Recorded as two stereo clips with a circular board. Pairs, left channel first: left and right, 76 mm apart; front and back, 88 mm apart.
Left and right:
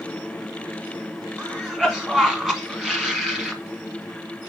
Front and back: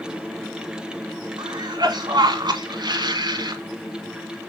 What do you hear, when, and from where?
1.4 s a cough: 170° right, 1.2 m